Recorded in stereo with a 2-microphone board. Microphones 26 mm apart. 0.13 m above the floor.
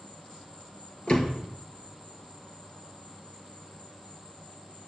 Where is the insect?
40° left (ahead or behind), 2.5 m.